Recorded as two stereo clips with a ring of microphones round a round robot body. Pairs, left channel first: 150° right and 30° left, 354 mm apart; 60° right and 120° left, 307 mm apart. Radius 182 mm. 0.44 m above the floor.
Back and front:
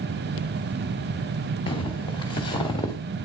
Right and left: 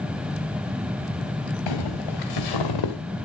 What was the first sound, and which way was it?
Footsteps, 75° right.